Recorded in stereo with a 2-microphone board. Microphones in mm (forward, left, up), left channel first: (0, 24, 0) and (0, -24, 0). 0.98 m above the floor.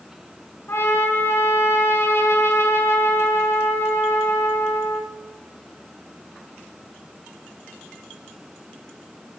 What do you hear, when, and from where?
0.7 s a trumpet: 70° left (ahead or behind), 5.5 m